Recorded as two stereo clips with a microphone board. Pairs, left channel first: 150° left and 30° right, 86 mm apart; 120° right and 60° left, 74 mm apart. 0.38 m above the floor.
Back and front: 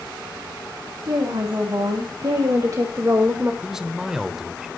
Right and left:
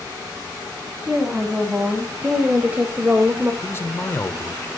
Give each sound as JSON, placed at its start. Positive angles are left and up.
{"t": 1.1, "sound": "a woman speaking", "azimuth_deg": -15, "distance_m": 3.0}
{"t": 3.6, "sound": "a man speaking", "azimuth_deg": -110, "distance_m": 1.1}